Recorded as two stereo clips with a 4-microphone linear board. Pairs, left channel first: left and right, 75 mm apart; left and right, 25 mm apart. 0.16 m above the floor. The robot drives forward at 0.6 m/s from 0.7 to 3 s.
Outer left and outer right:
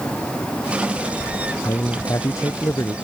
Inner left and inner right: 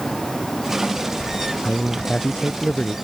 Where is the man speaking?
50° left (ahead or behind); by 3.0 s 45° left (ahead or behind).